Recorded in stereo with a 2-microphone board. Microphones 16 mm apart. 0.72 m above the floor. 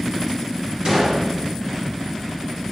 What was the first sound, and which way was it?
A gunshot, 60° right (ahead or behind).